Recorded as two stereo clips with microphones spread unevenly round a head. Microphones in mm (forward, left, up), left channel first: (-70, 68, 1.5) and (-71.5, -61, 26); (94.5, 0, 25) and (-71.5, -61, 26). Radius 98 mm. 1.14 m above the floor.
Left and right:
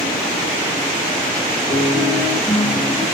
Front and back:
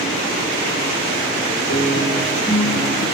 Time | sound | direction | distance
1.7 | a guitar | 10° left | 3 m